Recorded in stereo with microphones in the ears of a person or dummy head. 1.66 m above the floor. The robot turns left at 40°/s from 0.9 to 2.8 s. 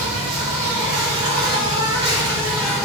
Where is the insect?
110° right, 1.2 m; by 2.9 s 175° left, 1.2 m.